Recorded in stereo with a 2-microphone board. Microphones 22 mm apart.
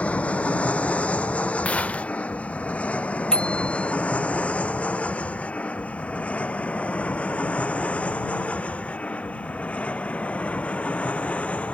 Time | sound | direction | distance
0.0 | an aircraft | 75° left (ahead or behind) | ?
1.6 | a gunshot | 85° left | ?
3.3 | a bicycle bell | 40° left (ahead or behind) | ?